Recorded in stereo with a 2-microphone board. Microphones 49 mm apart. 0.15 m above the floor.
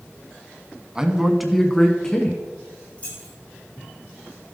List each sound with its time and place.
0.9 s a man speaking: 15° right (ahead or behind), 1.1 m; by 2.4 s 15° left (ahead or behind), 1.6 m
3.0 s keys jangling: 30° left (ahead or behind), 4.5 m